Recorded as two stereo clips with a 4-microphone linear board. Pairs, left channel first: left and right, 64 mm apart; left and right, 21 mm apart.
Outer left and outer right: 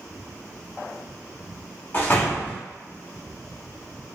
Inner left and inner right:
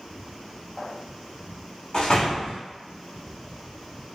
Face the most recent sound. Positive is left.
turn(degrees=35)  # may be behind; listen again after turning